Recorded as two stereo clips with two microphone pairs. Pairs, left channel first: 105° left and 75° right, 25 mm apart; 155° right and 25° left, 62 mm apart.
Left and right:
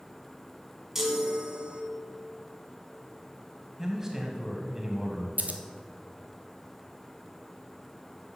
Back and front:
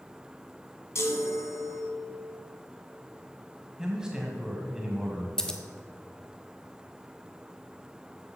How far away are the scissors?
About 1.0 m.